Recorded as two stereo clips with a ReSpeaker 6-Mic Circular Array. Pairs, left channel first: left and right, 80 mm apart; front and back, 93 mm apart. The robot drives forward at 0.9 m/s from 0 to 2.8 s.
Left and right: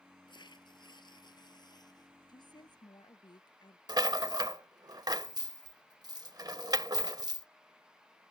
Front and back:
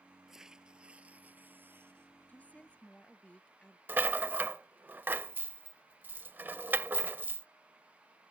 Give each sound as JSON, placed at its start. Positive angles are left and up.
{"t": 0.3, "sound": "tearing paper", "azimuth_deg": 95}
{"t": 2.3, "sound": "a woman speaking", "azimuth_deg": 70}
{"t": 3.9, "sound": "a rattle", "azimuth_deg": -115}